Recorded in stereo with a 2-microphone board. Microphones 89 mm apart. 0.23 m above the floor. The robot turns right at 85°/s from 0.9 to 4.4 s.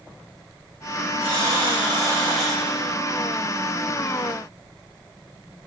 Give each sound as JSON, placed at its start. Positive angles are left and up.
{"t": 1.2, "sound": "a buzzer", "azimuth_deg": -110, "distance_m": 7.0}